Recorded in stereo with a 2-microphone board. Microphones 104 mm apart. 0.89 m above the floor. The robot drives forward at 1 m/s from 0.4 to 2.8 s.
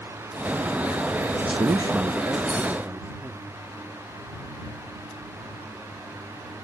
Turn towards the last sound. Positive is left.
turn(degrees=-15)  # may be behind; listen again after turning